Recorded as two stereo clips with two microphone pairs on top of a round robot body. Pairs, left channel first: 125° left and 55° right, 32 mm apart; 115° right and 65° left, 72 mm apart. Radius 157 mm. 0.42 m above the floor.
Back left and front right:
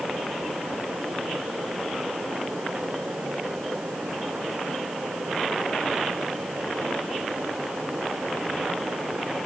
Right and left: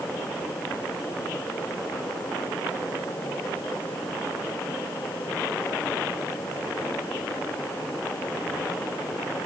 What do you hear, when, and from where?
Only background noise.